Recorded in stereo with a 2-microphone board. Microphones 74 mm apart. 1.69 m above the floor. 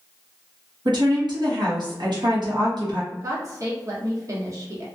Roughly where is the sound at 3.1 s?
Right.